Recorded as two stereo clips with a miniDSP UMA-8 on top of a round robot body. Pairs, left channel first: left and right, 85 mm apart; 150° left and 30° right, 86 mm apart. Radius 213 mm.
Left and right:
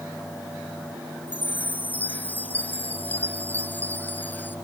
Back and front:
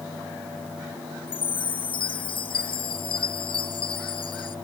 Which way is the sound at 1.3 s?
160° left.